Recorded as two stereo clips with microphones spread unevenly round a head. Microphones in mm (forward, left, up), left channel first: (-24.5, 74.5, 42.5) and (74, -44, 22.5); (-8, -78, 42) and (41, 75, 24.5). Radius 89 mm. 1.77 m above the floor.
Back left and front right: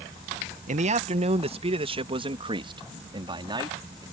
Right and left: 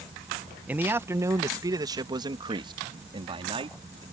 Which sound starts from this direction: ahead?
A man speaking, at 0.7 s.